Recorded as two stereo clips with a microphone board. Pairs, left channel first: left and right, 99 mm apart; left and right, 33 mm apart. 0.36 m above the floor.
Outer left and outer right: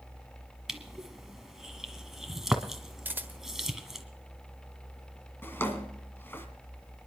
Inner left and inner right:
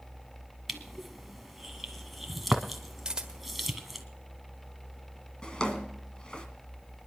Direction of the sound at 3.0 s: 20° right (ahead or behind).